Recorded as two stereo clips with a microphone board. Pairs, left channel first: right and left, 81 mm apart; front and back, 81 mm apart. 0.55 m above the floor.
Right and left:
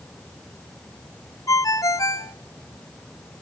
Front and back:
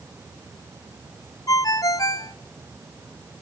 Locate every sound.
1.5 s a ringtone: 45° right, 0.9 m